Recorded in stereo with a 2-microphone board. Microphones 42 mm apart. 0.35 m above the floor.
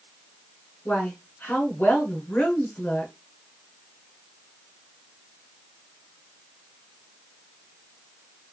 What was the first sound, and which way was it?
A woman speaking, 45° left (ahead or behind).